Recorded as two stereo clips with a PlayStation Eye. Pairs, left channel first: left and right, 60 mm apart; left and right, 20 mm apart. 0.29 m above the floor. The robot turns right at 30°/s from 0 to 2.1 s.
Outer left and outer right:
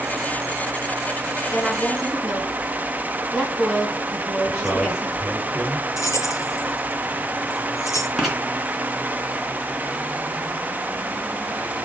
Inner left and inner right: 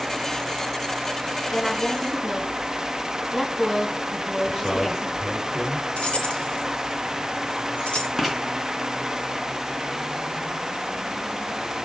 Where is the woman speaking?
15° left (ahead or behind), 3.5 m; by 5.2 s 5° right (ahead or behind), 3.5 m.